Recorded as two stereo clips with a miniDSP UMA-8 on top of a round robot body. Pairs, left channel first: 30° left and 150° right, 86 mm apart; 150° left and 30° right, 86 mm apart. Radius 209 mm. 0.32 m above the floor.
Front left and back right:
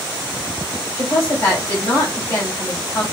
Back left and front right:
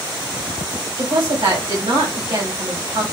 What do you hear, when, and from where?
1.0 s a woman speaking: 30° right, 3 m